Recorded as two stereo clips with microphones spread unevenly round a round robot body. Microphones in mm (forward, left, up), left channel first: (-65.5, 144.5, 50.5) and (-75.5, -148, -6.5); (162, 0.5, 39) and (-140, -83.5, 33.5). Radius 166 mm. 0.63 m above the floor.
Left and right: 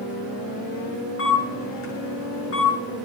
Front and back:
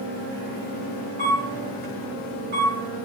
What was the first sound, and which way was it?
A camera shutter, 135° left.